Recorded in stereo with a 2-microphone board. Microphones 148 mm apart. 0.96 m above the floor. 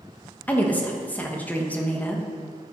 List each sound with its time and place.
0.5 s a woman speaking: 10° left (ahead or behind), 1.2 m